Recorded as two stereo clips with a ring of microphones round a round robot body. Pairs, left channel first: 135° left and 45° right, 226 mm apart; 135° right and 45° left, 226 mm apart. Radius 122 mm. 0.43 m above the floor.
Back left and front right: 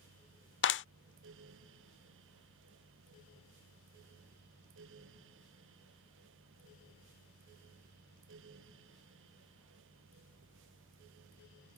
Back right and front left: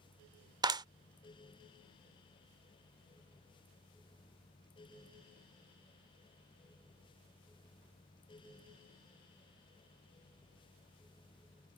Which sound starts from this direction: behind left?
A clap, at 0.6 s.